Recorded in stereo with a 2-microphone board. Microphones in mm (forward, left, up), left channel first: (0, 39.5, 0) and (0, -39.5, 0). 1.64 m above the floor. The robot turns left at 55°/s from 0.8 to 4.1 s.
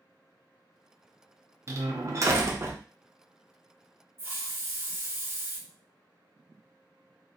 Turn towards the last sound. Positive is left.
turn(degrees=-30)  # may be behind; listen again after turning